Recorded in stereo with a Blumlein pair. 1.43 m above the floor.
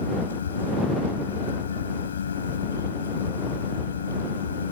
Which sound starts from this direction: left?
A fan, at 0.0 s.